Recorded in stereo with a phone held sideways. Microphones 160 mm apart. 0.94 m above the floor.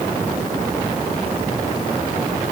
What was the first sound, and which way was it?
Only background noise.